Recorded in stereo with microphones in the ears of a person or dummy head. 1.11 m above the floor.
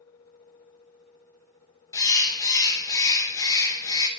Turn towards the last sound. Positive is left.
turn(degrees=15)  # may be behind; listen again after turning